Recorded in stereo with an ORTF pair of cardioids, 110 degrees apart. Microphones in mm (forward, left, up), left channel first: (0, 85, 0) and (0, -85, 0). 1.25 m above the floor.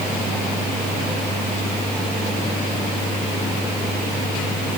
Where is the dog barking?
No dog barking in this recording.